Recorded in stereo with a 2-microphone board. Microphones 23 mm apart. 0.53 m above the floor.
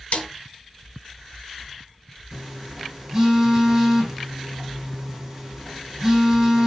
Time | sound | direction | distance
0.1 | a snare drum | 75° left (ahead or behind) | 3 m
2.3 | a phone buzzing | 25° right (ahead or behind) | 5.5 m